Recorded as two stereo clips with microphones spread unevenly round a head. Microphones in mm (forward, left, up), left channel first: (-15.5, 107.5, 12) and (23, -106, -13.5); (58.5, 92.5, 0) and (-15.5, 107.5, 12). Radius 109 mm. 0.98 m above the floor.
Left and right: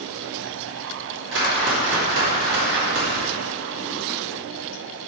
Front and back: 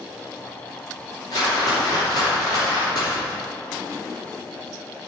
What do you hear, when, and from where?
1.3 s a whoosh: 50° right, 2.5 m